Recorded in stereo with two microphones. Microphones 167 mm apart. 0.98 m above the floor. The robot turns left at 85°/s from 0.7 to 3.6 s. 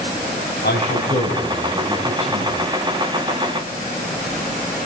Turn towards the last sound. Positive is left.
turn(degrees=-160)